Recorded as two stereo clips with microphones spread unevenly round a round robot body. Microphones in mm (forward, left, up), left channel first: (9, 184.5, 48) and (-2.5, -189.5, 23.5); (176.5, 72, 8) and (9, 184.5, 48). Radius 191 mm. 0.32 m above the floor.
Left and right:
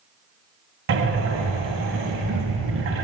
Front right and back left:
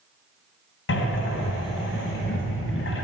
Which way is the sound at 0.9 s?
35° right.